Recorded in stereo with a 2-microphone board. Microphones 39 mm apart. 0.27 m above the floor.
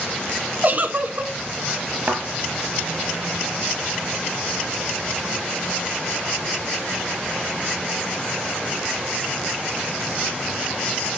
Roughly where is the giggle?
Right.